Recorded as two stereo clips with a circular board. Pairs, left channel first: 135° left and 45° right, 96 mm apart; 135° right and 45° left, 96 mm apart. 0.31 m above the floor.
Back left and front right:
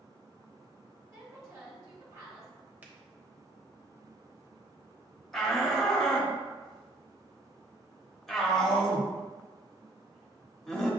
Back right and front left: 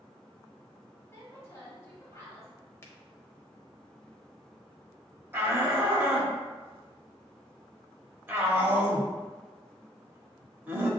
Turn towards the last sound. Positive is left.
turn(degrees=50)